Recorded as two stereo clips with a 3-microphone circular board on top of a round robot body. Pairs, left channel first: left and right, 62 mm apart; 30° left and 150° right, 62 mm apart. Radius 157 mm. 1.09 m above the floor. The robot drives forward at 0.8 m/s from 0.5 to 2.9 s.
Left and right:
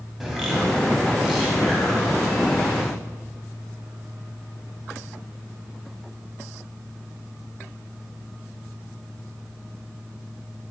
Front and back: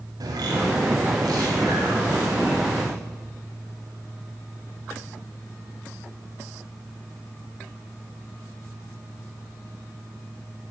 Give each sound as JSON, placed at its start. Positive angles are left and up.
{"t": 0.2, "sound": "a bird", "azimuth_deg": -175, "distance_m": 3.0}